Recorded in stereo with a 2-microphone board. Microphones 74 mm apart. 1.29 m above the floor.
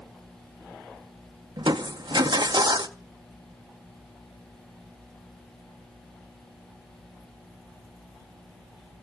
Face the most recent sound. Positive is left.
turn(degrees=-85)